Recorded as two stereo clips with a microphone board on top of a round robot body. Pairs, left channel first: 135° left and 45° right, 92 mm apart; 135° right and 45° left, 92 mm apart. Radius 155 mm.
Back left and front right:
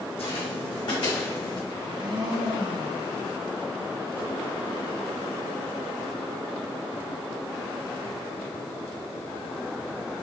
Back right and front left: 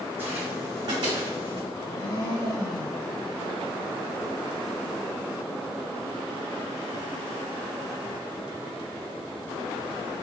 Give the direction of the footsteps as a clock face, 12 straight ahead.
8 o'clock.